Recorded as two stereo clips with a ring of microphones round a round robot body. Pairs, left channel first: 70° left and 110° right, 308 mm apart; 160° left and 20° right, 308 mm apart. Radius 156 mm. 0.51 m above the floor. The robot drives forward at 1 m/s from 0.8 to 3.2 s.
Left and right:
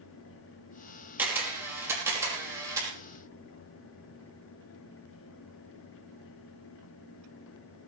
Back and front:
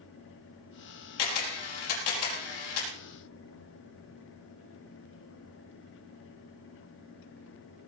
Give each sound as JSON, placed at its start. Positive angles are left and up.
{"t": 1.2, "sound": "a camera shutter", "azimuth_deg": 165, "distance_m": 4.5}